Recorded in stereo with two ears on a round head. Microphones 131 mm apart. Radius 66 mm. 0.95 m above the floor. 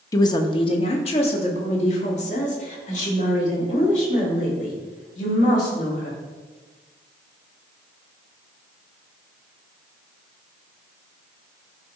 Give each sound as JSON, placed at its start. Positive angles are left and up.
{"t": 0.1, "sound": "a woman speaking", "side_deg": 25, "distance_m": 0.7}